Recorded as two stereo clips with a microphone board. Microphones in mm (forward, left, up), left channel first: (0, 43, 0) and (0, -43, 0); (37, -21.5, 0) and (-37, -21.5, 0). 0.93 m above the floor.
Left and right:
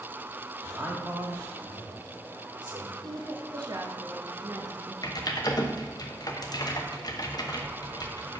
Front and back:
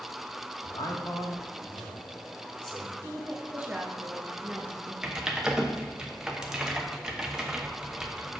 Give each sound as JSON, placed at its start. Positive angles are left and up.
{"t": 0.6, "sound": "a man speaking", "azimuth_deg": -20, "distance_m": 1.9}
{"t": 3.0, "sound": "a woman speaking", "azimuth_deg": -110, "distance_m": 1.2}
{"t": 5.0, "sound": "typing on a keyboard", "azimuth_deg": 100, "distance_m": 0.9}